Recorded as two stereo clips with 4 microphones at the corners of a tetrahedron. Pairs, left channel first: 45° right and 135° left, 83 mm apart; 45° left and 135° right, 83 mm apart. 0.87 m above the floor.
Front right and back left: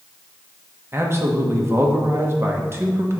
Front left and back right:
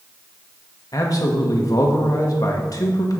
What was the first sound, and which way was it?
A man speaking, 80° left.